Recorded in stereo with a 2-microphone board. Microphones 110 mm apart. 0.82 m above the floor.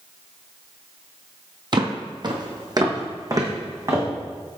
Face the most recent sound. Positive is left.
turn(degrees=-30)  # may be behind; listen again after turning